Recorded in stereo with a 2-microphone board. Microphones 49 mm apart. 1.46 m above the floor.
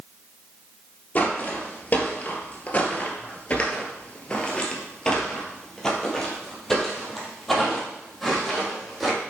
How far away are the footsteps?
About 2.0 m.